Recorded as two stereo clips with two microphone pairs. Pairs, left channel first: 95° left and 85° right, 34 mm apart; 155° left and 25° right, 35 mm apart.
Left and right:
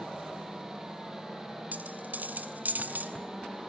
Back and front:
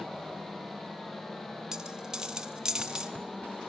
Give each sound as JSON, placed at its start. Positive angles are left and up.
{"t": 1.7, "sound": "a dropped coin", "azimuth_deg": -95, "distance_m": 1.0}